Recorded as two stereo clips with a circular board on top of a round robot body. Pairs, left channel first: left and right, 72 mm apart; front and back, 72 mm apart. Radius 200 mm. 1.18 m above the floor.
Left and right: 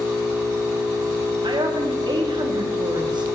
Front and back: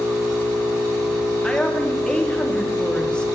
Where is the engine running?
40° right, 3.5 m.